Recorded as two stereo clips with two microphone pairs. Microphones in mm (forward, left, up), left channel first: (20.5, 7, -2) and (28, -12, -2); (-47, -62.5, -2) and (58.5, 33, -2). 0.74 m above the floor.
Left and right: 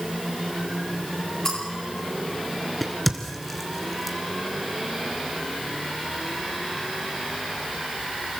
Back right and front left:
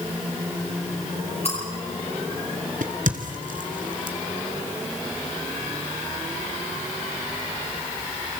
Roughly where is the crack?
Ahead left.